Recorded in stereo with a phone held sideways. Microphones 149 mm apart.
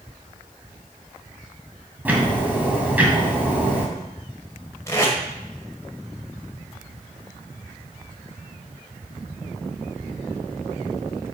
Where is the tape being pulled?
20° left (ahead or behind), 1.9 m.